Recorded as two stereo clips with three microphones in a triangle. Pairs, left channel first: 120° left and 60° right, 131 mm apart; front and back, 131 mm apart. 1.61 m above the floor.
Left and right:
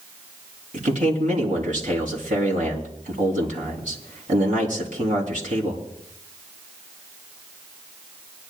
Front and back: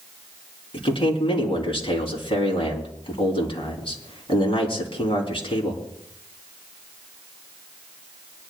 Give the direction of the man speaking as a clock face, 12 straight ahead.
2 o'clock.